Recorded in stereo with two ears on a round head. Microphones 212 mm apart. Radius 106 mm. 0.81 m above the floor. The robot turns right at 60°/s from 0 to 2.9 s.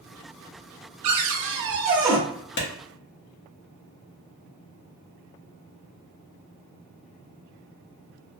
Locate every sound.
1.0 s a cupboard door: 75° right, 0.8 m; by 2.2 s 5° right, 0.8 m
2.6 s a clap: 50° left (ahead or behind), 0.9 m; by 2.7 s 40° left (ahead or behind), 0.9 m